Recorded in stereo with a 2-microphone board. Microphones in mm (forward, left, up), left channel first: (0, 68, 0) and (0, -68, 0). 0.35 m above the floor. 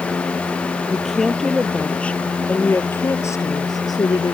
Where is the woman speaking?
Centre (ahead or behind); by 4.3 s 35° left (ahead or behind).